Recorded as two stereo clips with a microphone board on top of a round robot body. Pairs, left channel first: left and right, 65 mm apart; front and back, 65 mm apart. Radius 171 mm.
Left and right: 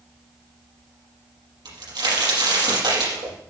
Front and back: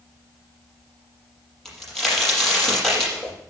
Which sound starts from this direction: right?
A crack, at 1.6 s.